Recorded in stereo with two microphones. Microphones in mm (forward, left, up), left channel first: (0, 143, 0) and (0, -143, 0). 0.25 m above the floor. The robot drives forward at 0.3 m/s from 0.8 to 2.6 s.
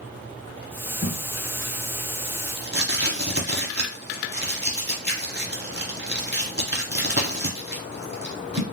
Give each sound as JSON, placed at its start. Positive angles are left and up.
{"t": 1.0, "sound": "tape being pulled", "side_deg": -30, "distance_m": 1.4}